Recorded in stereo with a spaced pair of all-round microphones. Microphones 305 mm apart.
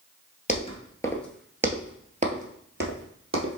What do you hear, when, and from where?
0.5 s footsteps: 25° left (ahead or behind), 1.1 m; by 3.6 s 45° right (ahead or behind), 1.6 m